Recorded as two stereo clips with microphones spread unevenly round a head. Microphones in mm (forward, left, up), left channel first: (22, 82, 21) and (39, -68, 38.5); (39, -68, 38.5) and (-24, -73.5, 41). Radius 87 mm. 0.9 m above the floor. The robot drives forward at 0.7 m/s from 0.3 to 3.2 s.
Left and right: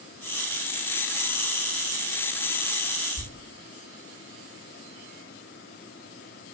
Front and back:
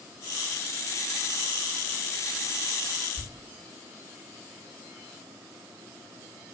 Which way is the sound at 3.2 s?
95° left.